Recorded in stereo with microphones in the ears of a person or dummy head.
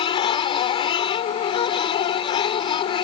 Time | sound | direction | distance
0.0 | a machine running | 30° left (ahead or behind) | ?